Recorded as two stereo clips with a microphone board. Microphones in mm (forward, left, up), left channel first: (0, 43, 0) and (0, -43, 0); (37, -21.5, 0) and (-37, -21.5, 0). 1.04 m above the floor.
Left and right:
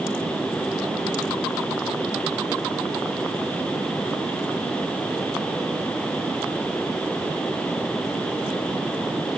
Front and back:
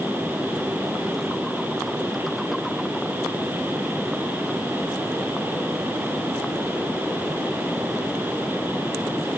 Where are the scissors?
I don't hear scissors.